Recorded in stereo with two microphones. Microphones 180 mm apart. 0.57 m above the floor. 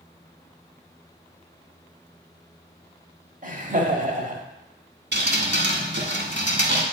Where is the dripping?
70° right (ahead or behind), 1.3 m.